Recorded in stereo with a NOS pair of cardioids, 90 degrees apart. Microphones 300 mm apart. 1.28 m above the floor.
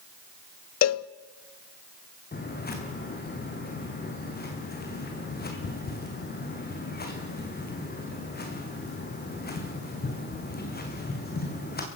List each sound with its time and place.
0.8 s a cowbell: 60° left, 0.6 m
2.3 s footsteps: 35° left, 4.5 m